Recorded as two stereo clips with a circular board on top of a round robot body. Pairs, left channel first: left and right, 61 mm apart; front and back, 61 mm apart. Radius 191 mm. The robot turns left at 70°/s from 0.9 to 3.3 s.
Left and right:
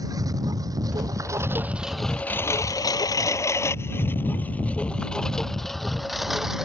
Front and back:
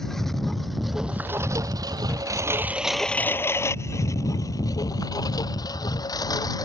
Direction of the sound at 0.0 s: 85° right.